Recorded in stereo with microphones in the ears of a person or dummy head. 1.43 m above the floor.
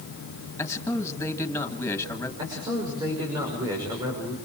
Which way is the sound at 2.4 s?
20° right (ahead or behind).